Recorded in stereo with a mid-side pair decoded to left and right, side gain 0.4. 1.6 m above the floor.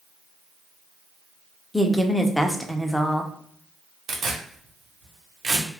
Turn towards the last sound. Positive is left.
turn(degrees=-65)